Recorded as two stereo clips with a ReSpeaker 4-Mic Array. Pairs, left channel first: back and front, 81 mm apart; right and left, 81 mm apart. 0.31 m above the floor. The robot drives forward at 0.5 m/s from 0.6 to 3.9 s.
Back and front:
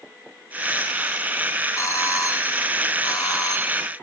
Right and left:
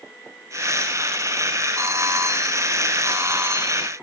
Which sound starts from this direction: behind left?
A doorbell, at 1.8 s.